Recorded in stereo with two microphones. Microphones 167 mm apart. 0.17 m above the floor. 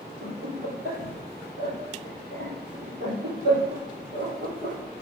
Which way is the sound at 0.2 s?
60° right (ahead or behind).